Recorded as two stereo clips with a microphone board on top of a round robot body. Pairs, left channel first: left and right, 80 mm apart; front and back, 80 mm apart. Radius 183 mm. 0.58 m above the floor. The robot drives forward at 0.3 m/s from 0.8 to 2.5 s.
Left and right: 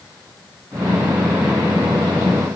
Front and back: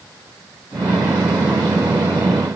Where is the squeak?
No squeak in this recording.